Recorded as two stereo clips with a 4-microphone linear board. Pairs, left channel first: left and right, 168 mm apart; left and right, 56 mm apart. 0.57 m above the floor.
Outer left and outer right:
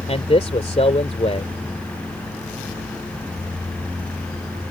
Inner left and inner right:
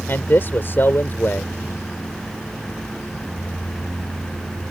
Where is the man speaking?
45° left (ahead or behind).